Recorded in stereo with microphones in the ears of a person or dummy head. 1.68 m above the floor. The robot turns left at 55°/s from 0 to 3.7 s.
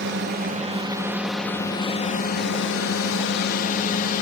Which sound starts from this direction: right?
A drone, at 0.0 s.